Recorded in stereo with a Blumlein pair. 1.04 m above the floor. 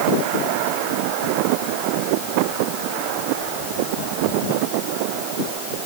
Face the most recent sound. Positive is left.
No sound to turn to.